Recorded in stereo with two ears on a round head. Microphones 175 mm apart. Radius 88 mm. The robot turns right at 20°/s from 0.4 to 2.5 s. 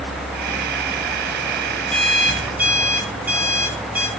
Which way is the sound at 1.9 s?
5° left (ahead or behind).